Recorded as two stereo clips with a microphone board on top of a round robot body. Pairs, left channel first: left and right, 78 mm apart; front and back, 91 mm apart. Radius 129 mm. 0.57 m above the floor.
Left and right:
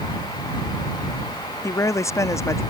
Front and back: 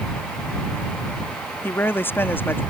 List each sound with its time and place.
1.6 s a woman speaking: 60° left